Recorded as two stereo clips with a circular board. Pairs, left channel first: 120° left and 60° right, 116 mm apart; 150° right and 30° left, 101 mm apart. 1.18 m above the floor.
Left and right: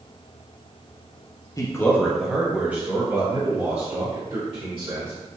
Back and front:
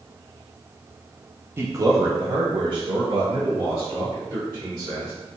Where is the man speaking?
80° left, 0.7 m; by 5.1 s 15° right, 1.9 m.